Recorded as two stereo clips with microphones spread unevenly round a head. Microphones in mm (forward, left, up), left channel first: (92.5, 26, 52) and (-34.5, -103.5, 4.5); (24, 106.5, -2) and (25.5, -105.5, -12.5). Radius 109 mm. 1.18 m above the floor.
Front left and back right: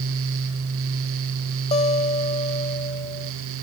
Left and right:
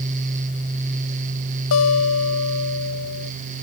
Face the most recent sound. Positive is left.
turn(degrees=110)